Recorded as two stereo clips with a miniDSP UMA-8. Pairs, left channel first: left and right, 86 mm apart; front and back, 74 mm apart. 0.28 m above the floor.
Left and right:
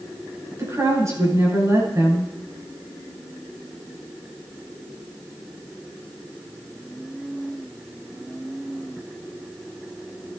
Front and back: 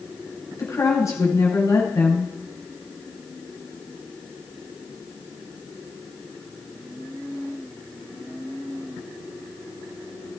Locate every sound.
0.6 s a woman speaking: 40° right, 7 m